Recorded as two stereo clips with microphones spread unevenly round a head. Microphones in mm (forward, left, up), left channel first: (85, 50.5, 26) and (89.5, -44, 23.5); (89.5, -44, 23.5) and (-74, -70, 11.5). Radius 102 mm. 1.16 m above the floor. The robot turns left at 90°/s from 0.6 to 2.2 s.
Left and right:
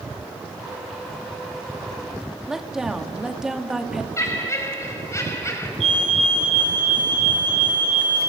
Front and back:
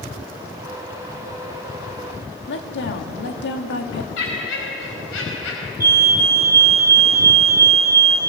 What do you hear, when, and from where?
2.5 s a woman speaking: straight ahead, 2.5 m
4.2 s laughter: 35° left, 5.5 m
5.8 s a fire alarm: 95° right, 5.5 m